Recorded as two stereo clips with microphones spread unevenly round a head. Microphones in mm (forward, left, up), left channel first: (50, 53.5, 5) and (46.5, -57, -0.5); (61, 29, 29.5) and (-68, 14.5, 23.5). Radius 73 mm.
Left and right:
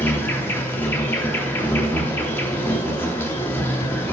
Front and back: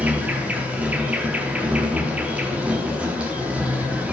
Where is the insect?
115° left, 0.8 m.